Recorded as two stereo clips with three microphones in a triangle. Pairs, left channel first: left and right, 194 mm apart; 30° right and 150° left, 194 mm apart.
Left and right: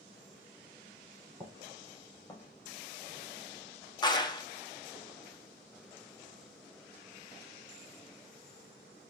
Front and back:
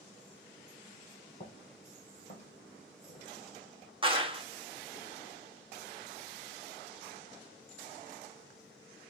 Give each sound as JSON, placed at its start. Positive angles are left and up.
{"t": 1.4, "sound": "footsteps", "azimuth_deg": 15, "distance_m": 3.5}
{"t": 4.0, "sound": "a clap", "azimuth_deg": 130, "distance_m": 0.7}